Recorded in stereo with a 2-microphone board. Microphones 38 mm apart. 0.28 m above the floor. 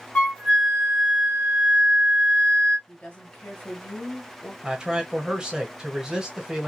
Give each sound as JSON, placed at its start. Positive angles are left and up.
{"t": 0.1, "sound": "a flute", "side_deg": 25, "distance_m": 0.9}
{"t": 2.9, "sound": "a woman speaking", "side_deg": 30, "distance_m": 1.2}
{"t": 4.6, "sound": "a man speaking", "side_deg": -20, "distance_m": 1.1}